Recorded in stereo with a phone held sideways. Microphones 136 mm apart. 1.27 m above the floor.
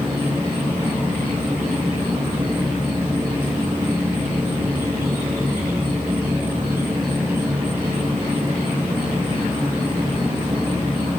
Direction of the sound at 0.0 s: 15° right (ahead or behind).